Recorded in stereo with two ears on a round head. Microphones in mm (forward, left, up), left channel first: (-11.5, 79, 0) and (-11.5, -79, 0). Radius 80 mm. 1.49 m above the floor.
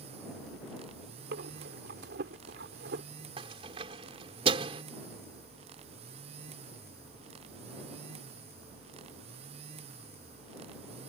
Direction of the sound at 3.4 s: 30° right (ahead or behind).